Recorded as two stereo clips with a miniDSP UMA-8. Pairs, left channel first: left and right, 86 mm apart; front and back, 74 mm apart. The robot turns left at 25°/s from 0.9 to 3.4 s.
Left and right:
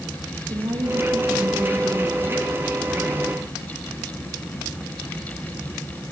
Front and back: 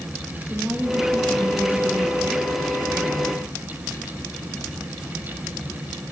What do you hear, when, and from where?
0.5 s a woman speaking: 110° right, 4 m; by 3.5 s 175° right, 4 m